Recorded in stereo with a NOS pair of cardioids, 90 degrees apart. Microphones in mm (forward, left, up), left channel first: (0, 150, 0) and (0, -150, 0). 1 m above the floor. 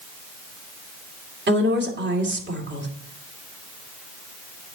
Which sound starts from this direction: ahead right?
A woman speaking, at 1.5 s.